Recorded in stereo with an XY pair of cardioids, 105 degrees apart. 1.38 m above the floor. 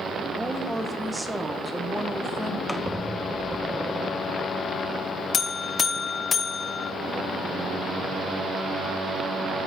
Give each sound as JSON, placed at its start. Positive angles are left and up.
{"t": 0.4, "sound": "a woman speaking", "azimuth_deg": -10, "distance_m": 1.5}
{"t": 2.7, "sound": "a squeak", "azimuth_deg": -5, "distance_m": 0.8}
{"t": 5.3, "sound": "a buzzer", "azimuth_deg": 40, "distance_m": 0.8}